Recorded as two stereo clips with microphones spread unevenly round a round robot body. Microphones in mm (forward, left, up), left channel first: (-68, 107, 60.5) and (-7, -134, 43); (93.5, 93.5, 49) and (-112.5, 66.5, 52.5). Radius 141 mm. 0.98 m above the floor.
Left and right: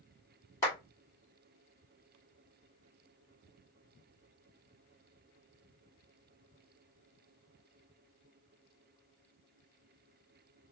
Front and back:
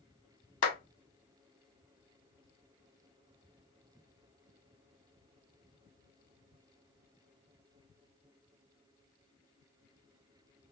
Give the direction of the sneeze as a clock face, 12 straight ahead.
I don't hear a sneeze.